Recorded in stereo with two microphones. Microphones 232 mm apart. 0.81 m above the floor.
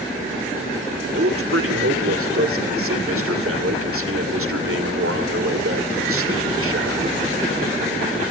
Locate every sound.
1.1 s a man speaking: 70° right (ahead or behind), 2.5 m